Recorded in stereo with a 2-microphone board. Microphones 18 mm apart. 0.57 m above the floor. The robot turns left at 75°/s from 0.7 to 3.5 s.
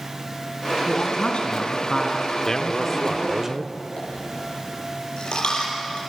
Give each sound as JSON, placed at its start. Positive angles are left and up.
{"t": 0.9, "sound": "a man speaking", "azimuth_deg": 115, "distance_m": 5.0}
{"t": 2.5, "sound": "a man speaking", "azimuth_deg": 45, "distance_m": 1.0}
{"t": 4.0, "sound": "a dropped coin", "side_deg": 60, "distance_m": 8.0}